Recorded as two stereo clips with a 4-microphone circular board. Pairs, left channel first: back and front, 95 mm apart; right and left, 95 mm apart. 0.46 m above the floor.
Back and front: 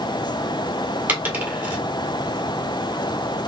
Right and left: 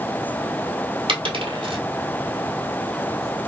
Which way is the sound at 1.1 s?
70° left.